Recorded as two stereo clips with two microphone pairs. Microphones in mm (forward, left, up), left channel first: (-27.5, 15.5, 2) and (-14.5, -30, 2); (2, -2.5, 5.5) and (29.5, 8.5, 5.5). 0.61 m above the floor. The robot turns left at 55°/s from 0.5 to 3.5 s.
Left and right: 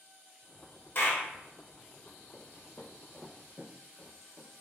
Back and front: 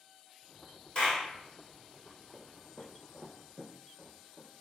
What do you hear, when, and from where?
0.9 s a clap: 150° left, 1.4 m; by 1.3 s 130° left, 1.4 m
2.3 s footsteps: 120° left, 0.9 m; by 4.5 s 35° right, 1.4 m